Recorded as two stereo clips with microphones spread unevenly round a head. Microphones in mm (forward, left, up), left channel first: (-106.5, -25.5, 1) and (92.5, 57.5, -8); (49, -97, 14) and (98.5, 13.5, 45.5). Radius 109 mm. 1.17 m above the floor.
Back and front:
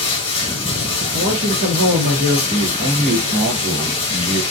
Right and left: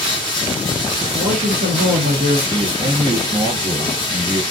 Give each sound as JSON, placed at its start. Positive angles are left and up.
{"t": 0.0, "sound": "running water", "azimuth_deg": -150, "distance_m": 1.0}
{"t": 1.1, "sound": "a man speaking", "azimuth_deg": 65, "distance_m": 0.8}
{"t": 2.5, "sound": "a man speaking", "azimuth_deg": 80, "distance_m": 1.1}